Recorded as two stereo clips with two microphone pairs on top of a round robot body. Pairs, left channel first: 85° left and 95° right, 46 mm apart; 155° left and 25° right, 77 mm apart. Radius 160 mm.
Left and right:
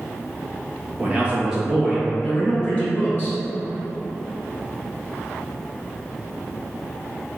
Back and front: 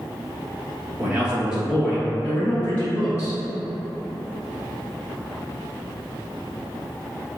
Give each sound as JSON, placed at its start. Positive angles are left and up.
{"t": 1.0, "sound": "a man speaking", "azimuth_deg": -90, "distance_m": 1.3}